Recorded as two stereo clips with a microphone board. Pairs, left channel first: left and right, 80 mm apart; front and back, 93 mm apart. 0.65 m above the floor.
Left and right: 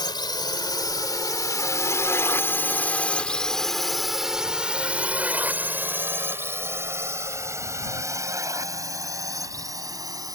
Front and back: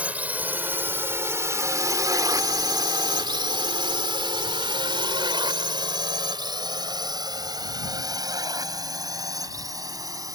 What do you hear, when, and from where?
0.0 s a drone: 105° left; by 10.3 s 130° right